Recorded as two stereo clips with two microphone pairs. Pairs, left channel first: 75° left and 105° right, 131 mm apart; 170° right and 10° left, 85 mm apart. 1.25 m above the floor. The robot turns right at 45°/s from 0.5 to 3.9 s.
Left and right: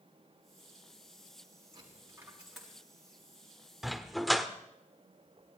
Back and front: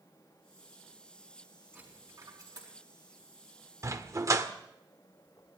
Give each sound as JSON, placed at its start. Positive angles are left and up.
{"t": 1.7, "sound": "a dropped coin", "azimuth_deg": -55, "distance_m": 6.0}
{"t": 3.8, "sound": "a dog barking", "azimuth_deg": -20, "distance_m": 1.1}